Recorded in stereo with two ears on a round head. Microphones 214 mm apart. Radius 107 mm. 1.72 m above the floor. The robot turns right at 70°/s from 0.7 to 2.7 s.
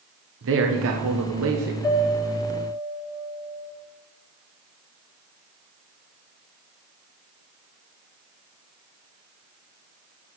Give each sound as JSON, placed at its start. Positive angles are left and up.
{"t": 0.4, "sound": "a man speaking", "azimuth_deg": -120, "distance_m": 1.1}
{"t": 1.8, "sound": "a piano", "azimuth_deg": 160, "distance_m": 4.0}